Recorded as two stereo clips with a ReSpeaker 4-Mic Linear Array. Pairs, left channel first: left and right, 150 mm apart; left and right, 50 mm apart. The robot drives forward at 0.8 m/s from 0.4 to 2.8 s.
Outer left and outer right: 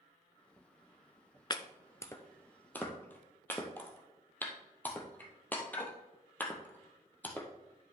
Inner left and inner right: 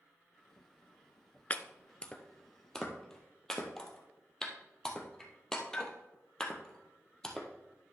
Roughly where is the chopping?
Left.